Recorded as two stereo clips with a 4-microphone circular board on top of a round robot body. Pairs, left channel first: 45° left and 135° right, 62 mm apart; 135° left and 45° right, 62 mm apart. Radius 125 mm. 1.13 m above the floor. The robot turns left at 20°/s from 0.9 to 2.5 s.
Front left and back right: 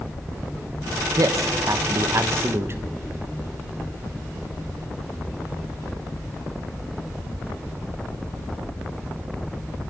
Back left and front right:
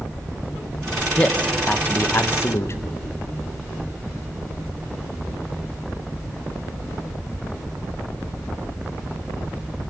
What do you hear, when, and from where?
1.2 s a man speaking: 155° right, 1.2 m; by 2.8 s 175° left, 1.2 m